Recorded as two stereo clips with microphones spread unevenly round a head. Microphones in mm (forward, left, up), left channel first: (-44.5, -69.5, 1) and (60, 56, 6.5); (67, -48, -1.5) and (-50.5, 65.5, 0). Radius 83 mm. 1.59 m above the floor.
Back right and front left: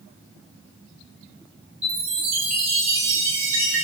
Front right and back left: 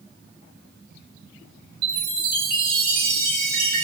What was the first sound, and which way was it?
A chime, 100° left.